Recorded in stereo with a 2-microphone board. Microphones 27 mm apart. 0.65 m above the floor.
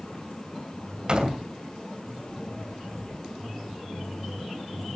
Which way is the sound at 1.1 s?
30° right (ahead or behind).